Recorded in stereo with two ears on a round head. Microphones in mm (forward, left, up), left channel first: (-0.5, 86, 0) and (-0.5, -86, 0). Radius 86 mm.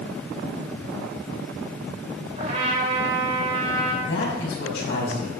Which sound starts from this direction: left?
A man speaking, at 4.0 s.